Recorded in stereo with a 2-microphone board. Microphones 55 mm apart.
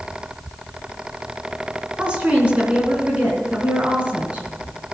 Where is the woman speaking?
25° right (ahead or behind), 3.5 m.